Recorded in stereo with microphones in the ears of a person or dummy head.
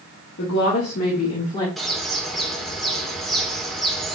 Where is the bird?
Centre (ahead or behind), 2 m.